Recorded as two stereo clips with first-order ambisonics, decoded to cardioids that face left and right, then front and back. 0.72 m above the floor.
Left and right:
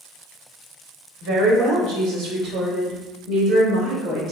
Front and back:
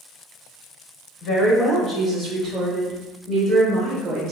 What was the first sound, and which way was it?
A woman speaking, 60° right.